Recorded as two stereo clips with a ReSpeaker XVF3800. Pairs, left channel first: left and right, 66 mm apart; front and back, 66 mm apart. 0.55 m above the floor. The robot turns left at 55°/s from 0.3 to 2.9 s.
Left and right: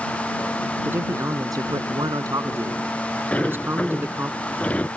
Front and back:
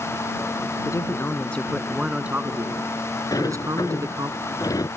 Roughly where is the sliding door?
Ahead.